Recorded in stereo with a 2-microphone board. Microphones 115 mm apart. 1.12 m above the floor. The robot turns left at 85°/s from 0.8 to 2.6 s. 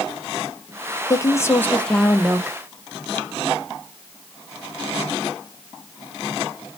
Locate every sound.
1.1 s a woman speaking: 30° left (ahead or behind), 0.6 m; by 2.6 s 20° right (ahead or behind), 0.6 m